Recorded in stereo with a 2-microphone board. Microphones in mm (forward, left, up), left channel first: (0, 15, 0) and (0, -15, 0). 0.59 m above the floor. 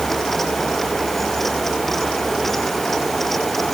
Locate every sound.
Only background noise.